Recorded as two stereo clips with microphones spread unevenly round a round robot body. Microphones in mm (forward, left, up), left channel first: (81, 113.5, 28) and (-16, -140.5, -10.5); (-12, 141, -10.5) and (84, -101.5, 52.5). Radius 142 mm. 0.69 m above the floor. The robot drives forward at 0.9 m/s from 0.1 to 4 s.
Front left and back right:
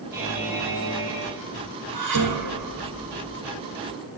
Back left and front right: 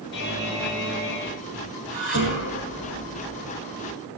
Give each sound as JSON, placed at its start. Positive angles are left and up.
{"t": 0.1, "sound": "a buzzer", "azimuth_deg": 165, "distance_m": 4.5}
{"t": 1.9, "sound": "dishes clattering", "azimuth_deg": -130, "distance_m": 3.5}